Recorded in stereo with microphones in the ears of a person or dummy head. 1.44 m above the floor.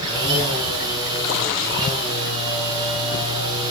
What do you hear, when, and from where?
0.0 s a machine running: 20° right (ahead or behind), 10 m